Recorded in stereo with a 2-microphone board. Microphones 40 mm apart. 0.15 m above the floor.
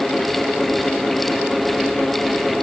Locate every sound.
Only background noise.